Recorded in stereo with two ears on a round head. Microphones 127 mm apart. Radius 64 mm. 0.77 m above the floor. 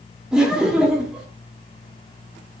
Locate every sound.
0.3 s laughter: 5° right (ahead or behind), 1.9 m